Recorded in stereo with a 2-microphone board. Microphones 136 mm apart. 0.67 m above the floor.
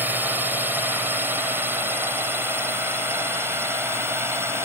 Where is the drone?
15° right (ahead or behind); by 4.7 s 20° right (ahead or behind).